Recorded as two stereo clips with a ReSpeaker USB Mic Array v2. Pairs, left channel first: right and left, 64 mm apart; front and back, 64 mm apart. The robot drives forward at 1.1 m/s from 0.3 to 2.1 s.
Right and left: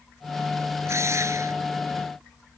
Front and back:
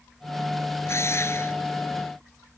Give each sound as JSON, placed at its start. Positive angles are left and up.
{"t": 0.8, "sound": "a drill", "azimuth_deg": 45}